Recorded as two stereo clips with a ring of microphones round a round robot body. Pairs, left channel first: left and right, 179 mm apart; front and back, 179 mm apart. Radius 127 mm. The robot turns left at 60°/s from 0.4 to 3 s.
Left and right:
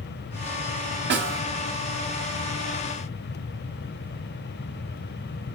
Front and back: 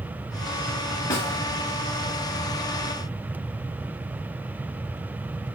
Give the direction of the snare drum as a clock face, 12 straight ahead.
3 o'clock.